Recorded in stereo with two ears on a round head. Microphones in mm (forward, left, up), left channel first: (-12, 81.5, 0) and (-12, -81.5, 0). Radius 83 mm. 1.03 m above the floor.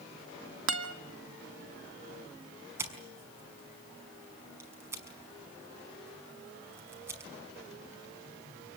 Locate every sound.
0.7 s a guitar: 75° right (ahead or behind), 2 m
2.8 s scissors: 15° right (ahead or behind), 5.5 m